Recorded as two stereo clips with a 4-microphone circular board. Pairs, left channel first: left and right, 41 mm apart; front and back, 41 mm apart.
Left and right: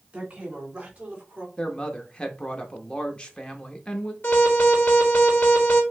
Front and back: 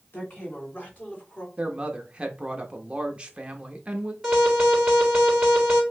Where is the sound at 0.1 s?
30° right, 2.5 m; by 1.5 s 45° right, 1.8 m.